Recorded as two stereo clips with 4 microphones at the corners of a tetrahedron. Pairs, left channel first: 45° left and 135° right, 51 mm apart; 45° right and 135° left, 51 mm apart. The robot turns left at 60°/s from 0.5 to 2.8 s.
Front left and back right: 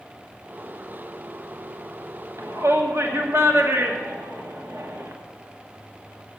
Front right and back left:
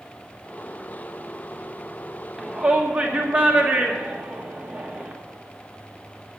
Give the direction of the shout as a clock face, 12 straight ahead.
5 o'clock.